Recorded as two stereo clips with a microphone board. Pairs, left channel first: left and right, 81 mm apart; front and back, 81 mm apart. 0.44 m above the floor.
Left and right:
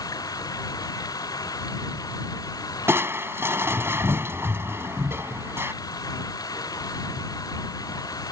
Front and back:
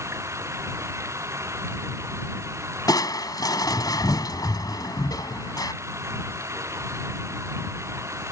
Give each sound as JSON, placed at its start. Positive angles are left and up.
{"t": 0.0, "sound": "running water", "azimuth_deg": 125}
{"t": 2.9, "sound": "crushing", "azimuth_deg": -35}